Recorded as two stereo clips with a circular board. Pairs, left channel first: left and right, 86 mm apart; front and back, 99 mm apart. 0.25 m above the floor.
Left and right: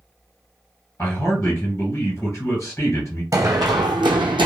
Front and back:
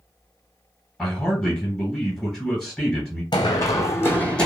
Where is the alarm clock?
No alarm clock in this recording.